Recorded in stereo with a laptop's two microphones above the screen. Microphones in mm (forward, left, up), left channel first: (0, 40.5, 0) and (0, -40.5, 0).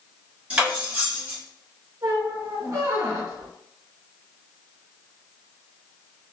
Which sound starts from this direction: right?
A squeak, at 2.0 s.